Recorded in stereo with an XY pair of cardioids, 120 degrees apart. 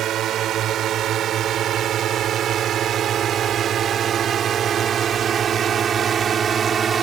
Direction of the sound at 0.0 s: 60° right.